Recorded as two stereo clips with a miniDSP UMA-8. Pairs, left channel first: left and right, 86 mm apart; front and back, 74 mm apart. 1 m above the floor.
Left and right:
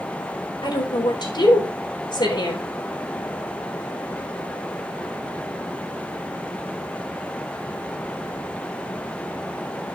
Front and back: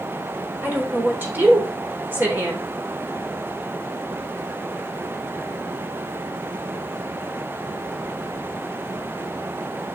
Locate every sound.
0.6 s a woman speaking: 115° left, 3.5 m